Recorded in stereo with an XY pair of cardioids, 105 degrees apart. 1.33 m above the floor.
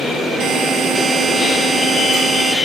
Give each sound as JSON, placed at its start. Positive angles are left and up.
{"t": 0.4, "sound": "a buzzer", "azimuth_deg": -60, "distance_m": 8.0}